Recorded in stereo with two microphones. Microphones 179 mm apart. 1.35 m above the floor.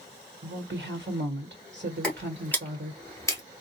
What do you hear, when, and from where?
0.4 s a woman speaking: 85° right, 1.2 m
2.0 s footsteps: 5° left (ahead or behind), 1.5 m; by 3.4 s 15° left (ahead or behind), 1.4 m